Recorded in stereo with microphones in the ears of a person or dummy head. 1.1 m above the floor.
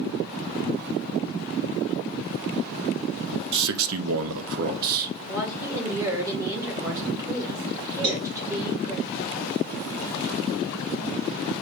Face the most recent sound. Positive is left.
turn(degrees=-25)  # may be behind; listen again after turning